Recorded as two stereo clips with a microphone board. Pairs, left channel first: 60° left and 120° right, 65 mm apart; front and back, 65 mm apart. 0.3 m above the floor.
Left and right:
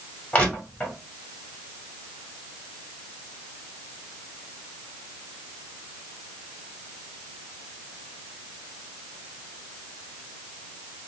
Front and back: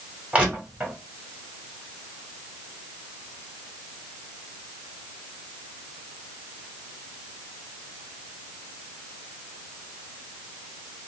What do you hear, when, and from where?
0.3 s crushing: 120° left, 1.6 m